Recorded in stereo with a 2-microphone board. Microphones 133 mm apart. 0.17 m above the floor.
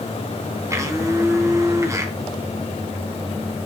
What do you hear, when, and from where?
0.7 s a blender: 25° right (ahead or behind), 1.4 m